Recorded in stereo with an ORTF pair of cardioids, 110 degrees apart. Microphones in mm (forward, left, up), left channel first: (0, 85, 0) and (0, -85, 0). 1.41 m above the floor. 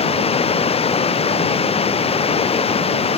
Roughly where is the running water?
Ahead left.